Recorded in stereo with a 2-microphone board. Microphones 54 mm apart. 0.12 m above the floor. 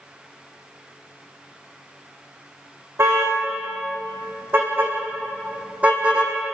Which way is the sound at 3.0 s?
50° right (ahead or behind).